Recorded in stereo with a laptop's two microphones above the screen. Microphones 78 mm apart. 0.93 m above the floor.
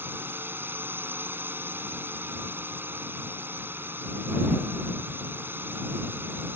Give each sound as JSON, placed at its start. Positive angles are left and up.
{"t": 0.0, "sound": "a drone", "side_deg": -25}